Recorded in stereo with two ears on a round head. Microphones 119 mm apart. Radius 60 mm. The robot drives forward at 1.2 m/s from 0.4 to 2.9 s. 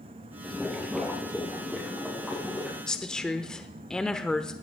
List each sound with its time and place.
0.4 s boiling: centre (ahead or behind), 3.5 m
2.9 s a woman speaking: 5° left (ahead or behind), 1.0 m